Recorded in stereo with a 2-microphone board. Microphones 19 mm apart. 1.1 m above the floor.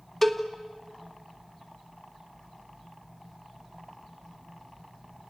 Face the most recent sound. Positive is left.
turn(degrees=10)  # may be behind; listen again after turning